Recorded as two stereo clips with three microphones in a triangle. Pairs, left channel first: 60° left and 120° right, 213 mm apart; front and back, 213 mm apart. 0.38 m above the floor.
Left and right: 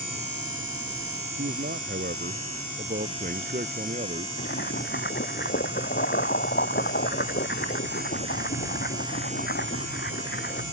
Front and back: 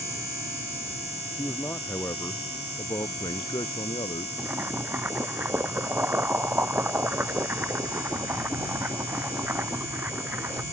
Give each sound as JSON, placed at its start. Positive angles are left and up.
{"t": 1.4, "sound": "a man speaking", "azimuth_deg": -80}
{"t": 4.4, "sound": "boiling", "azimuth_deg": 100}